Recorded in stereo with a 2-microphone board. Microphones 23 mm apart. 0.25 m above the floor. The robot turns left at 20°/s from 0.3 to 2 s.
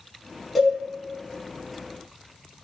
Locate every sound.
0.6 s a cowbell: centre (ahead or behind), 0.9 m